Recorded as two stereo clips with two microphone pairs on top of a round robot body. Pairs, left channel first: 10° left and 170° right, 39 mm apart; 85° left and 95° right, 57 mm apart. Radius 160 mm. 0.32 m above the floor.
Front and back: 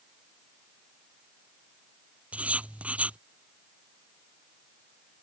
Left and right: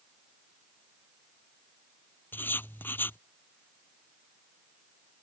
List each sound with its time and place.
2.3 s writing: 140° left